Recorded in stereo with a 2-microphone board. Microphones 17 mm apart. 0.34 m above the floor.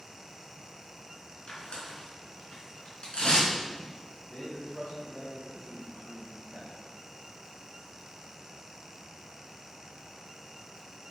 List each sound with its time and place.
1.5 s tearing paper: 70° left (ahead or behind), 4 m
4.3 s a man speaking: 65° left (ahead or behind), 3.5 m